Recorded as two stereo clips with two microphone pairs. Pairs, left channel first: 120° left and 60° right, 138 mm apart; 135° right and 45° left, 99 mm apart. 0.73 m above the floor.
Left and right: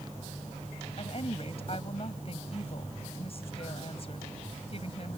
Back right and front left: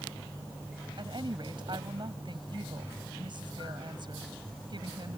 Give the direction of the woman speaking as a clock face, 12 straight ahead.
9 o'clock.